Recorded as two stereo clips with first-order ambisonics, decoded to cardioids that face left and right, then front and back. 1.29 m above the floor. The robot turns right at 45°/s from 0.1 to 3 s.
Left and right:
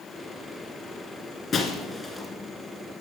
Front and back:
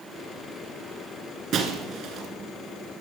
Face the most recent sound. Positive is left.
turn(degrees=-150)